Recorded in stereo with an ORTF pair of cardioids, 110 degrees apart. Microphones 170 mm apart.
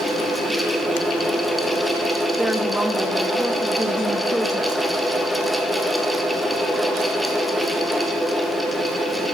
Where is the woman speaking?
5° right, 1.6 m.